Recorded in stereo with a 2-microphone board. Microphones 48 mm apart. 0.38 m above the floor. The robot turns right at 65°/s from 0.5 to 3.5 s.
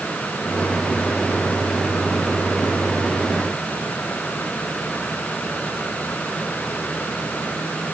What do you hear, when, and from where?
Only background noise.